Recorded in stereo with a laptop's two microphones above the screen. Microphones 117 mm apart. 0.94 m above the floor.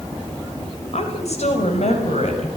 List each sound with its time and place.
0.9 s a woman speaking: 65° left (ahead or behind), 5 m; by 2.5 s 75° left (ahead or behind), 6.5 m